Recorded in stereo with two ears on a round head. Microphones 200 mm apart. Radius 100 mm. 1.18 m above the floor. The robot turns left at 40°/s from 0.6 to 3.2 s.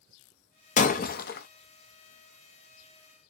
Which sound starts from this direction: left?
Breaking glass, at 0.8 s.